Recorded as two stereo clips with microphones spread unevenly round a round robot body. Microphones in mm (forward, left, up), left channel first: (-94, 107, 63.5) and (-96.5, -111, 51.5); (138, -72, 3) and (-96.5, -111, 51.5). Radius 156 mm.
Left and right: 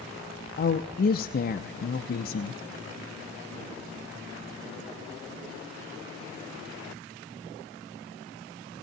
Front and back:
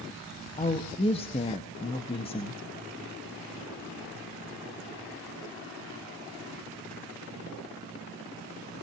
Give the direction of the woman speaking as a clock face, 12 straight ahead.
10 o'clock.